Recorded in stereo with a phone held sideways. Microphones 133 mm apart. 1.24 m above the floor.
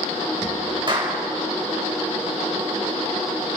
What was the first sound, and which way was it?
A clap, 35° right (ahead or behind).